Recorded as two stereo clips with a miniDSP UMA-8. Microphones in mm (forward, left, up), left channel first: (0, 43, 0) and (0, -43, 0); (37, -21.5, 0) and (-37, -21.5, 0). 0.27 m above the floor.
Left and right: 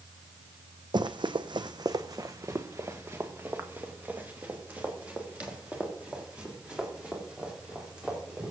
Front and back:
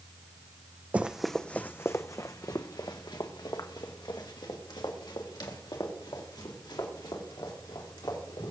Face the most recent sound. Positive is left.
turn(degrees=-10)